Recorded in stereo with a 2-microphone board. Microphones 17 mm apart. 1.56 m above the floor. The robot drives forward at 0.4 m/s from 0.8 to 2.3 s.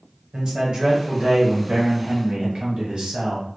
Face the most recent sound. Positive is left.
turn(degrees=-75)  # may be behind; listen again after turning